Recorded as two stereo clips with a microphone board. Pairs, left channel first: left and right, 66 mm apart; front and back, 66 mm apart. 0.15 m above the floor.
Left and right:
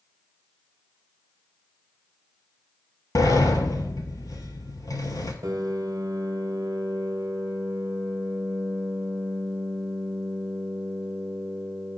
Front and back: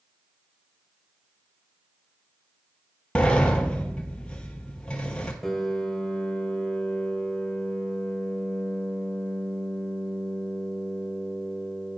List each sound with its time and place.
3.1 s a sliding door: 70° left, 0.9 m
5.4 s a piano: 90° right, 0.7 m